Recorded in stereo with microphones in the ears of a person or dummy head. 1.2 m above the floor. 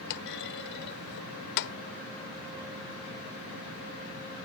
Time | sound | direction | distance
0.1 | a clunk | 60° left (ahead or behind) | ?